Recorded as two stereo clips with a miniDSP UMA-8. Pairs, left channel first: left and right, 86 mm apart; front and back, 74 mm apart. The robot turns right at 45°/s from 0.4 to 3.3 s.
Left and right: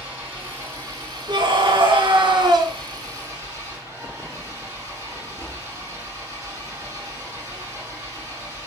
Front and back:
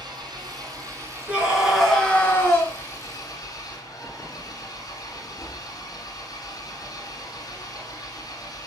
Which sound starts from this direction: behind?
An engine running, at 0.0 s.